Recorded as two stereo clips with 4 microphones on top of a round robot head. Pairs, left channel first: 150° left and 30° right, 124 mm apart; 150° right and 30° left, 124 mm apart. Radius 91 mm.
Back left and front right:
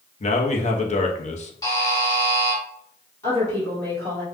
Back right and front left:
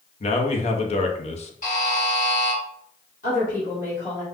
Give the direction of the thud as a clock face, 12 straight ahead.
No thud in this recording.